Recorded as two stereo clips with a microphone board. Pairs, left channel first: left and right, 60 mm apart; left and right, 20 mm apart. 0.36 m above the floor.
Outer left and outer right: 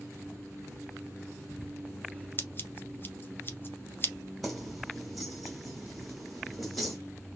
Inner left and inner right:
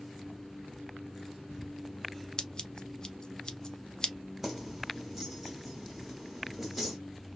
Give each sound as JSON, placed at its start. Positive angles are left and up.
{"t": 2.4, "sound": "scissors", "side_deg": 35, "distance_m": 0.6}
{"t": 4.4, "sound": "keys jangling", "side_deg": 0, "distance_m": 1.4}